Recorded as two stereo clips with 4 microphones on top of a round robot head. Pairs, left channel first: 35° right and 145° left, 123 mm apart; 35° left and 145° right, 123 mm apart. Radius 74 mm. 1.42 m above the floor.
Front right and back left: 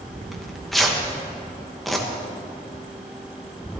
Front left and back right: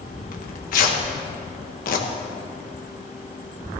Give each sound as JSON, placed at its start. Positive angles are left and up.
{"t": 0.3, "sound": "tearing paper", "azimuth_deg": 55, "distance_m": 1.3}